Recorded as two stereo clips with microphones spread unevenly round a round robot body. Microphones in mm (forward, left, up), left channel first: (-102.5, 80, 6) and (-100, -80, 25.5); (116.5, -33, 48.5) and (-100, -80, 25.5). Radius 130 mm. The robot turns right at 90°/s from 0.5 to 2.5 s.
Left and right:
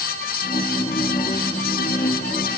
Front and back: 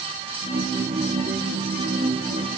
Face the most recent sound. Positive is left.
No sound to turn to.